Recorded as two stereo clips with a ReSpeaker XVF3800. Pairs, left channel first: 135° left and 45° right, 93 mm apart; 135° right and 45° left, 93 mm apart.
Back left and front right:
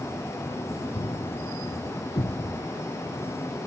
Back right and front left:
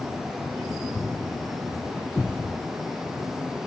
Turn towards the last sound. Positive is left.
turn(degrees=155)